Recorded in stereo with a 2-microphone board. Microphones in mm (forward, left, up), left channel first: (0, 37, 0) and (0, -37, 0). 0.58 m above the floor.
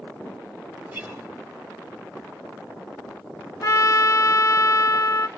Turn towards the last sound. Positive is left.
turn(degrees=45)  # may be behind; listen again after turning